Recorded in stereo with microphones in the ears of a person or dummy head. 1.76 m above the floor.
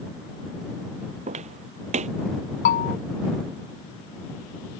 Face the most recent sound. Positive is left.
turn(degrees=50)  # may be behind; listen again after turning